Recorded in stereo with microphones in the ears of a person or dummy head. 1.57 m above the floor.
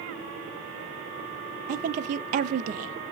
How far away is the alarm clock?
No alarm clock in this recording.